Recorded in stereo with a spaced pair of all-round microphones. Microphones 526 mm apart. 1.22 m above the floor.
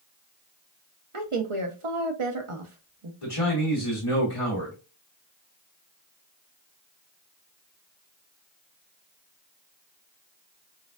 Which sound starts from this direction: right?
A woman speaking, at 1.1 s.